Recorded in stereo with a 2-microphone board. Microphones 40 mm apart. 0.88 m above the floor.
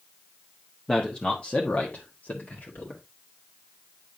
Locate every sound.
0.9 s a man speaking: 15° left (ahead or behind), 1.2 m; by 3.0 s 55° left (ahead or behind), 2 m